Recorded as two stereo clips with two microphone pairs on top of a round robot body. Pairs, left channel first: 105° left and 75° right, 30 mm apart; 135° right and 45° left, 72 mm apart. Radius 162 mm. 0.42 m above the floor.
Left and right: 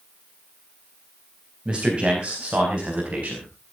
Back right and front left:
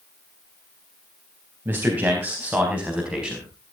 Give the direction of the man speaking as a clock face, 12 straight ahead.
1 o'clock.